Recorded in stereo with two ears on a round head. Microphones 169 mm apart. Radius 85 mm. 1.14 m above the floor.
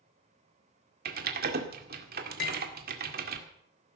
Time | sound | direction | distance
1.1 | typing on a keyboard | 55° right (ahead or behind) | 2.0 m
2.4 | cutlery clinking | 55° left (ahead or behind) | 1.8 m